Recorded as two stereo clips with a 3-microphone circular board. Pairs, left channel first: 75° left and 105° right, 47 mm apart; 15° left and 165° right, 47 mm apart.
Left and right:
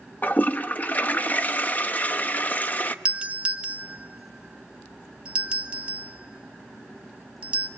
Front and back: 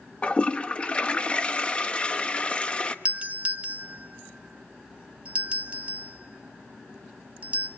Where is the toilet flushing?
65° left, 1.0 m.